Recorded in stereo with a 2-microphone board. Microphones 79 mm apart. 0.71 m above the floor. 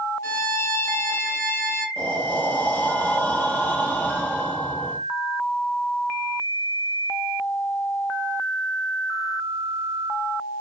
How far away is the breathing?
About 1.1 m.